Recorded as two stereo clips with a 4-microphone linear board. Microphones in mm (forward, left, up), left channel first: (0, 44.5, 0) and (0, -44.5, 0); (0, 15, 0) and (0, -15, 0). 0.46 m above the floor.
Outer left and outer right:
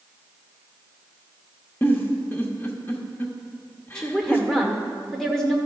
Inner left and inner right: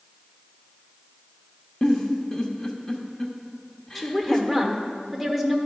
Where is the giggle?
30° left (ahead or behind), 0.9 m.